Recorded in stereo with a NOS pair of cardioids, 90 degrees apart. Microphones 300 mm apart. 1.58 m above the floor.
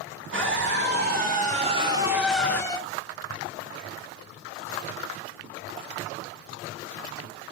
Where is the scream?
40° right, 3 m; by 2.8 s 15° left, 1.6 m.